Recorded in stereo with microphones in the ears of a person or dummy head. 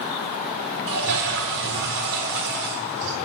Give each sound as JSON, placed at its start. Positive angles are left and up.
{"t": 0.9, "sound": "a toilet flushing", "side_deg": -65, "distance_m": 3.5}